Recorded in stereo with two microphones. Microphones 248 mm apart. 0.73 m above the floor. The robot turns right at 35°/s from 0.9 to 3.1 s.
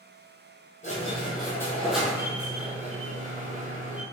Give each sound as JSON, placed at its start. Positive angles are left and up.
{"t": 0.8, "sound": "a squeak", "azimuth_deg": 145, "distance_m": 1.2}